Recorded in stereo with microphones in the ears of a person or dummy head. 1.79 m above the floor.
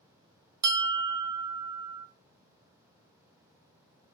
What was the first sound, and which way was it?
A bell, 20° right (ahead or behind).